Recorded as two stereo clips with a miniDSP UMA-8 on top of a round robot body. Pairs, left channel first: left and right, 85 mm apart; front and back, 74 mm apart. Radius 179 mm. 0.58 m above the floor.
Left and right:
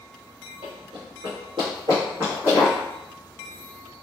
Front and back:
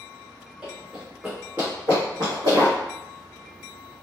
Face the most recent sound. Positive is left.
turn(degrees=-175)